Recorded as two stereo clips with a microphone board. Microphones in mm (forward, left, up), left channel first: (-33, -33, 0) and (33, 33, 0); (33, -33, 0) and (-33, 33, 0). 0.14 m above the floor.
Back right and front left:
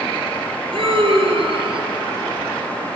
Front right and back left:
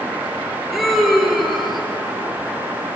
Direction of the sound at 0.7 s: 45° left.